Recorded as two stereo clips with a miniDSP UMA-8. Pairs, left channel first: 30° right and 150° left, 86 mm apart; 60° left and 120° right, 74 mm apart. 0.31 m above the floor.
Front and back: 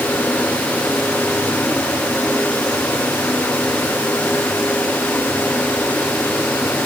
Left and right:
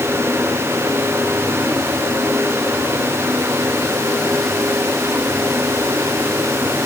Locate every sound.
Only background noise.